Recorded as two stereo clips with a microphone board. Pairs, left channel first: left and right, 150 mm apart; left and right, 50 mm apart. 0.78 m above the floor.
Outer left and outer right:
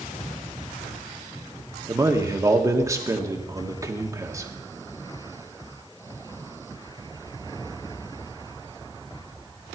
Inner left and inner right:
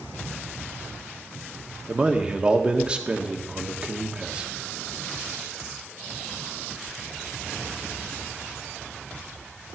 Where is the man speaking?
20° right (ahead or behind), 1.4 m.